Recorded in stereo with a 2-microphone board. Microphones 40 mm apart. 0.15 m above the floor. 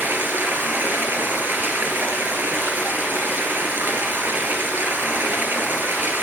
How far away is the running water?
About 1.9 m.